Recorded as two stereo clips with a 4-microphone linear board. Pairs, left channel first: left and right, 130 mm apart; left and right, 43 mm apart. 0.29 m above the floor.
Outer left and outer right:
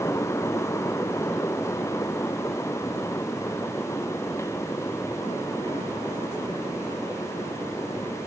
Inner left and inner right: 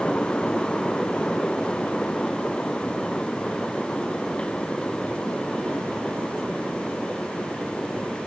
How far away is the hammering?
I don't hear hammering.